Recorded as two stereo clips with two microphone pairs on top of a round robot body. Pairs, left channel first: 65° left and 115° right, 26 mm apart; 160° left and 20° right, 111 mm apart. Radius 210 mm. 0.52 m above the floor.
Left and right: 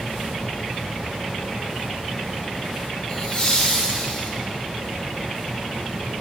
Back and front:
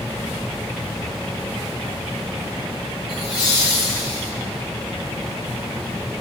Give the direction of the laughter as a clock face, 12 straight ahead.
8 o'clock.